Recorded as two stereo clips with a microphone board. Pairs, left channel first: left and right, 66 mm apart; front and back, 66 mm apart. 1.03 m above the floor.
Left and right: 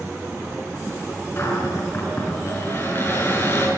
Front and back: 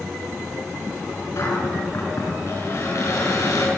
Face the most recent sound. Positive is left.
turn(degrees=40)